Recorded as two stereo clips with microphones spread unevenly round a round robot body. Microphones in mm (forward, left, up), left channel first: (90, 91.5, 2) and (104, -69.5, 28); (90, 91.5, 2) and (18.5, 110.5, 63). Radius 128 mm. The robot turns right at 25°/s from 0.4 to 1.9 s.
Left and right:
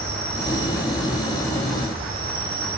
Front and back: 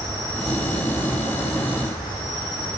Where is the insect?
110° right, 4.5 m; by 2.8 s 70° right, 4.5 m.